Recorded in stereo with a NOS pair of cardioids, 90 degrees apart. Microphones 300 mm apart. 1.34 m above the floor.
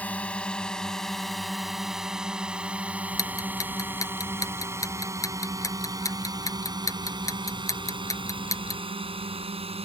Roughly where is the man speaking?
I don't hear a man speaking.